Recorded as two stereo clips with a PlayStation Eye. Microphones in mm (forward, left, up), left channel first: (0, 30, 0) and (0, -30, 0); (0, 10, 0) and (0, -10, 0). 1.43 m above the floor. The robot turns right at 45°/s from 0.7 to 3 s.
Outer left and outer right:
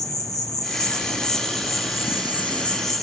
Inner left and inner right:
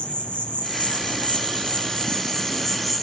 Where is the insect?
75° left, 0.8 m; by 3.0 s straight behind, 0.8 m.